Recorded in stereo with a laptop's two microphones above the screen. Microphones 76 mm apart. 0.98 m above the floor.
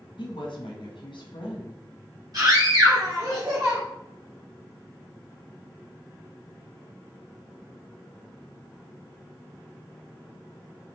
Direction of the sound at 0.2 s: 75° left (ahead or behind).